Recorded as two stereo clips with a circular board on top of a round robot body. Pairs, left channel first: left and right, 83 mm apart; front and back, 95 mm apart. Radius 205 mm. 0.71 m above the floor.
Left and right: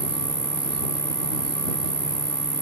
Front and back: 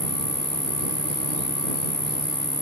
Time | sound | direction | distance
0.0 | an insect | 70° right | ?